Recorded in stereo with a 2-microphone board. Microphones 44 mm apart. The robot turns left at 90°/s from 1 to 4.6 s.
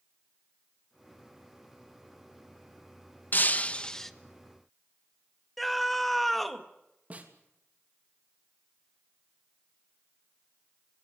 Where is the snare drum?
35° right (ahead or behind), 3 m.